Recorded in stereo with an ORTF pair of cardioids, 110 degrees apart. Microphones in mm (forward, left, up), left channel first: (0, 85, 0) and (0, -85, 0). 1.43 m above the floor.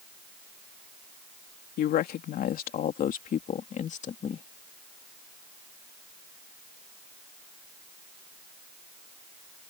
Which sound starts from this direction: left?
A woman speaking, at 1.8 s.